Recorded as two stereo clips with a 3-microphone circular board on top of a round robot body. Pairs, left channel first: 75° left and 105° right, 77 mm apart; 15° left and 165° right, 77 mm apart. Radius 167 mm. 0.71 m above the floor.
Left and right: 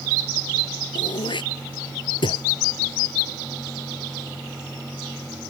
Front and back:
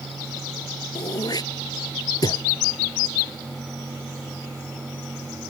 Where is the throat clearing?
55° left.